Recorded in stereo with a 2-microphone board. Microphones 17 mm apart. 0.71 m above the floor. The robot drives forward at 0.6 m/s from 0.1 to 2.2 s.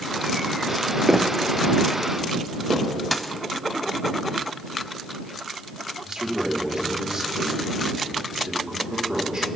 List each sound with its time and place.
1.1 s footsteps: 25° right (ahead or behind), 0.8 m; by 2.9 s 80° right, 3 m
3.1 s a dropped coin: 5° left (ahead or behind), 0.8 m
6.0 s a man speaking: 50° right (ahead or behind), 2.5 m